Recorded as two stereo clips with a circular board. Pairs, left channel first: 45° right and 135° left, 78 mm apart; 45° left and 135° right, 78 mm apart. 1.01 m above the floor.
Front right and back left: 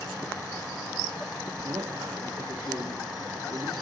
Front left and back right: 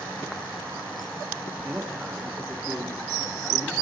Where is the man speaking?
160° left, 2.5 m.